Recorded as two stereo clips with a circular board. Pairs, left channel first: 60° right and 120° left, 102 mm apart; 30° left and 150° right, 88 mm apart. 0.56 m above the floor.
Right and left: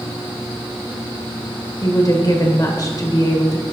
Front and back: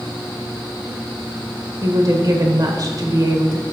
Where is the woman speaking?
110° right, 1.7 m.